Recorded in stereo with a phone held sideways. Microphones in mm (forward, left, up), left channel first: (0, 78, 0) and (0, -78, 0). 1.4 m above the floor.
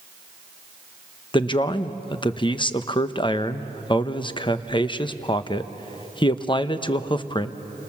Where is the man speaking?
30° left (ahead or behind), 0.9 m.